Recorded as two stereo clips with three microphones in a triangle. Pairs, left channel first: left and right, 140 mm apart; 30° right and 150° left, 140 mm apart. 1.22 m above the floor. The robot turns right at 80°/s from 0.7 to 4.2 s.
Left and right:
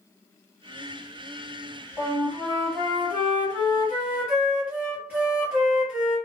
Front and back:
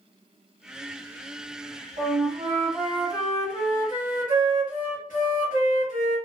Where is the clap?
No clap in this recording.